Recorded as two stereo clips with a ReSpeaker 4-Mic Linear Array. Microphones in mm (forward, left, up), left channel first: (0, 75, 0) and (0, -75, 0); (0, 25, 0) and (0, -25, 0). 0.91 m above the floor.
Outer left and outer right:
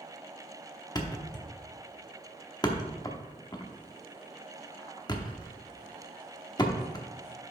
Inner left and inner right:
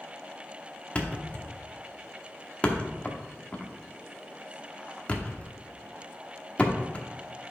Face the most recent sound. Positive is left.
turn(degrees=25)  # may be behind; listen again after turning